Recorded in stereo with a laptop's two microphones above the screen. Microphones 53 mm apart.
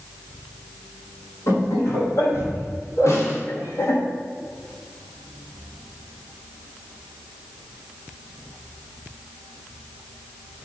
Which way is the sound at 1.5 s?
90° left.